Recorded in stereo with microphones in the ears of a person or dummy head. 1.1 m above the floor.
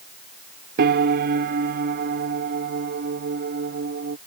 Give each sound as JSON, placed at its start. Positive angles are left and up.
{"t": 0.8, "sound": "a piano", "side_deg": -50}